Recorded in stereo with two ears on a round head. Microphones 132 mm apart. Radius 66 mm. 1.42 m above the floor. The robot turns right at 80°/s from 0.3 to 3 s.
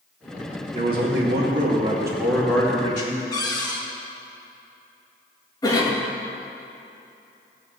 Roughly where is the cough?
Left.